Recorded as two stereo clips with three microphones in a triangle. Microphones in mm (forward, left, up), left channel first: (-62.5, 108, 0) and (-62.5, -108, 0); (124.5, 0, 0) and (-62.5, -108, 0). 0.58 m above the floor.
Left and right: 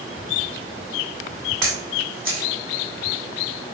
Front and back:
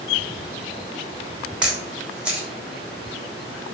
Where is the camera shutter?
65° right, 0.9 m.